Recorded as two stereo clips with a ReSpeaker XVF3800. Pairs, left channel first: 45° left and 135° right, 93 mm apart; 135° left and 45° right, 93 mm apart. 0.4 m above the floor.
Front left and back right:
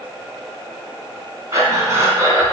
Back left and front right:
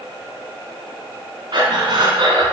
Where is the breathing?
80° right, 1.2 m.